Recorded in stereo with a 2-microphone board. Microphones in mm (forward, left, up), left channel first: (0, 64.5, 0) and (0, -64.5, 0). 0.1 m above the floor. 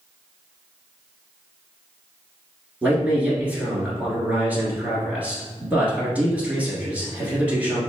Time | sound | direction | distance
2.8 | a man speaking | 10° right (ahead or behind) | 1.5 m